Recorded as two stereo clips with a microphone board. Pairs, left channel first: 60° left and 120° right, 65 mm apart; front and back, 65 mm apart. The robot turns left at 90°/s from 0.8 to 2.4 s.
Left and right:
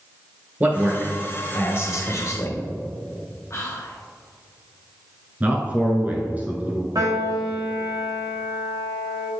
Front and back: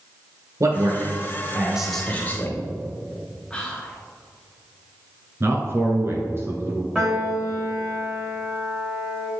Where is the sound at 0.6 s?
175° right, 1.7 m; by 2.6 s 40° left, 1.7 m.